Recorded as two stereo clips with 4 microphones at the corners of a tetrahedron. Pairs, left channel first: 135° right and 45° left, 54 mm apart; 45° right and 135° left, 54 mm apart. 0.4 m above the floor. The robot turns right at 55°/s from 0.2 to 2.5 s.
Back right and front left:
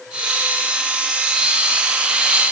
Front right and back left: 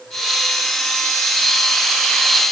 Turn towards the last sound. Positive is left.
No sound to turn to.